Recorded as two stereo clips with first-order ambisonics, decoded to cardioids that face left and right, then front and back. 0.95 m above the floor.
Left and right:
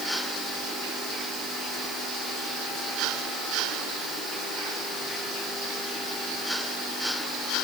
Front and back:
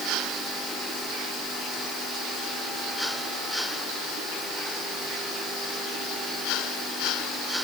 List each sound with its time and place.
Only background noise.